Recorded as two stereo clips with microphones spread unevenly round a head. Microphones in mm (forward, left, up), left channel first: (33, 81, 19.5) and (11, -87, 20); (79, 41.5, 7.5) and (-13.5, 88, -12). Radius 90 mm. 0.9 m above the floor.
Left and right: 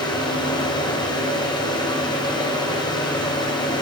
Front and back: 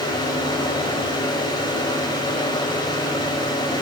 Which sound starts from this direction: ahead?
A fan, at 0.0 s.